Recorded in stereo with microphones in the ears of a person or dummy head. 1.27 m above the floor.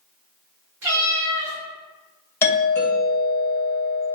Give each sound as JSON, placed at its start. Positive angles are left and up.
{"t": 0.8, "sound": "a cat meowing", "side_deg": -55, "distance_m": 1.3}
{"t": 2.4, "sound": "a doorbell", "side_deg": 10, "distance_m": 1.1}